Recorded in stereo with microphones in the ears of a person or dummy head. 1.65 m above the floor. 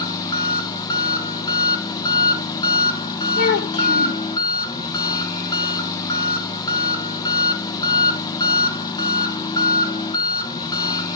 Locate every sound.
0.0 s an engine running: 20° left (ahead or behind), 1.1 m
3.4 s a child speaking: 60° left (ahead or behind), 2 m